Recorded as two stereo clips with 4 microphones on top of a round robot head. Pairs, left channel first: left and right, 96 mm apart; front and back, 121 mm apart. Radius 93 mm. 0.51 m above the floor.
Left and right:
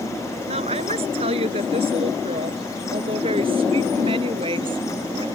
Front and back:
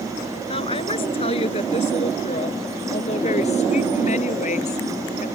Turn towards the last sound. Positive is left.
turn(degrees=-40)